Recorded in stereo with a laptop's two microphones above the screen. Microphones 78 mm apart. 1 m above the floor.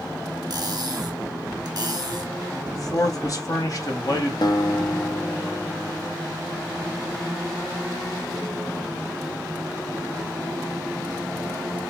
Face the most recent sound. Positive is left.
turn(degrees=65)  # may be behind; listen again after turning